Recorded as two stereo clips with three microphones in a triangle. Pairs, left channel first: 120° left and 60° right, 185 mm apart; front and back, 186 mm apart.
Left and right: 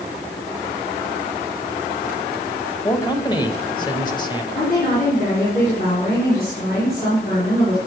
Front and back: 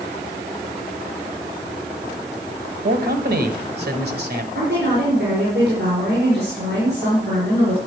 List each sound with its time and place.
2.8 s a man speaking: 175° right, 1.7 m
4.5 s a woman speaking: 155° left, 5 m